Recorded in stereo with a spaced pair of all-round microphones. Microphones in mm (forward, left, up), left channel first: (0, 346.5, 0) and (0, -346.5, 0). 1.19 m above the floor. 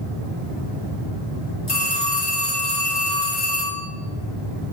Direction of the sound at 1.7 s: 75° left (ahead or behind).